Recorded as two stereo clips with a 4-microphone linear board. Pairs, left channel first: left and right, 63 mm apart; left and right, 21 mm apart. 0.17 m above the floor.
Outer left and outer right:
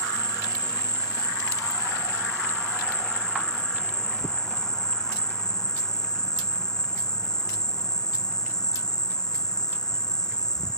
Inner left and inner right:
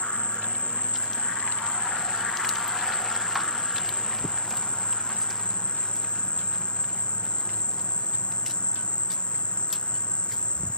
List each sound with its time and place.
0.0 s an insect: 75° left (ahead or behind)